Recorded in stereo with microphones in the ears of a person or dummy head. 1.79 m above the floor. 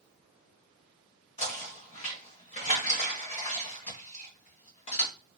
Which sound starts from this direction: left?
Knocking, at 1.4 s.